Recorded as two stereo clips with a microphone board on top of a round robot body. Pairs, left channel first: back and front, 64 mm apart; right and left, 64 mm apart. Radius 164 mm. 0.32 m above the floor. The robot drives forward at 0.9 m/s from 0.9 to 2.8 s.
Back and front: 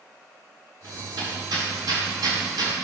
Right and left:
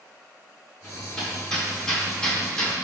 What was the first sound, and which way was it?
Hammering, 10° right.